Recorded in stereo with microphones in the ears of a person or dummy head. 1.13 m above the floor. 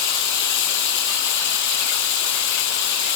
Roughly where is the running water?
Left.